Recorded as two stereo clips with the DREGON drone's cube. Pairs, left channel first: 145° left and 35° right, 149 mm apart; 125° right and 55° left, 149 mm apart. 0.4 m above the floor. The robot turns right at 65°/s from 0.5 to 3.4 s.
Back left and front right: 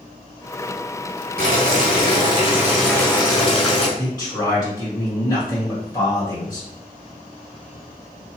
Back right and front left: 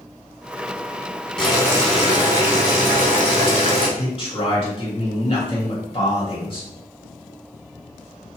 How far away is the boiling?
About 1.0 m.